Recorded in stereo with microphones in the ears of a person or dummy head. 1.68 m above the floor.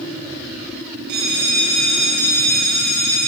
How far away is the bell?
About 6.5 m.